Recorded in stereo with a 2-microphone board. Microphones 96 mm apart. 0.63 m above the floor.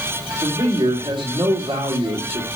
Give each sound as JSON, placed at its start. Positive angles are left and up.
{"t": 0.4, "sound": "a man speaking", "side_deg": -50, "distance_m": 2.0}